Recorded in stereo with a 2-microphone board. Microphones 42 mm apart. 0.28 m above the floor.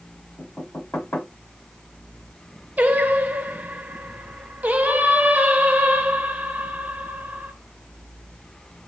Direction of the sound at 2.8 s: 40° right (ahead or behind).